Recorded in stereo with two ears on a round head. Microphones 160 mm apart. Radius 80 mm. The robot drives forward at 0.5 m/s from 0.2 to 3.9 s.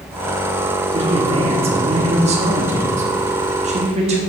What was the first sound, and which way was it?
A man speaking, 30° right (ahead or behind).